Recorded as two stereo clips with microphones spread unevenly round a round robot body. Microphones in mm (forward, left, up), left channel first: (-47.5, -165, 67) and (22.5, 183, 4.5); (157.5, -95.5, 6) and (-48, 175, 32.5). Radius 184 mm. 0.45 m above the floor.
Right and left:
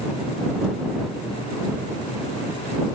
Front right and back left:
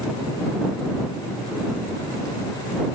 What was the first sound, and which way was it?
Only background noise.